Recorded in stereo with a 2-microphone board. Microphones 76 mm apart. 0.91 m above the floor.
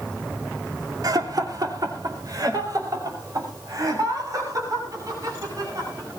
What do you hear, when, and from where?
1.0 s laughter: 55° right (ahead or behind), 2.5 m; by 6.1 s 50° right (ahead or behind), 10.5 m